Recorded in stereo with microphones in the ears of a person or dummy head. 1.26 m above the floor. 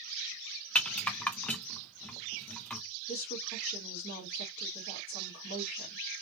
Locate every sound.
0.8 s a rattle: 5° left (ahead or behind), 0.6 m
3.1 s a woman speaking: 50° left (ahead or behind), 1.8 m